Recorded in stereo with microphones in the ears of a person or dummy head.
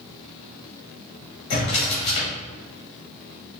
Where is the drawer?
25° left (ahead or behind), 1.1 m.